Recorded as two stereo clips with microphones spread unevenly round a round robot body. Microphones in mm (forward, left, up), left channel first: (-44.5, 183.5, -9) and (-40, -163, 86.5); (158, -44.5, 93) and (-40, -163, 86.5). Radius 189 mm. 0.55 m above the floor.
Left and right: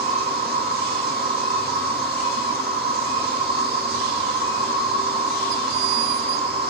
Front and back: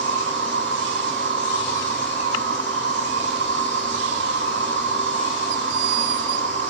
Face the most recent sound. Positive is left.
turn(degrees=-160)